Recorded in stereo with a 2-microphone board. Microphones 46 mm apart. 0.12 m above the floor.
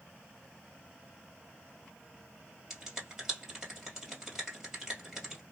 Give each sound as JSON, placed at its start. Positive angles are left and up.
{"t": 2.7, "sound": "a finger snap", "side_deg": -10, "distance_m": 2.0}